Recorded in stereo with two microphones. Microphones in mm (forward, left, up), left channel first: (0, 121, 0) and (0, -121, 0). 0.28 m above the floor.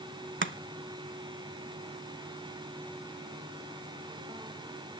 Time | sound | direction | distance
0.4 | chopping | 50° right (ahead or behind) | 0.7 m